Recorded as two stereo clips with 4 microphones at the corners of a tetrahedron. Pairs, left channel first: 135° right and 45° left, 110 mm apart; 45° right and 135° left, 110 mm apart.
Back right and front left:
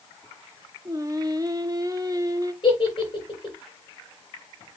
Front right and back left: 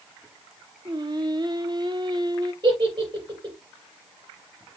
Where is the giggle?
Straight behind, 5.5 m.